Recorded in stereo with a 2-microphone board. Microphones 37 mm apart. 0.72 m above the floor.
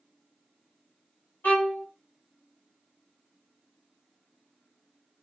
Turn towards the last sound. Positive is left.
turn(degrees=85)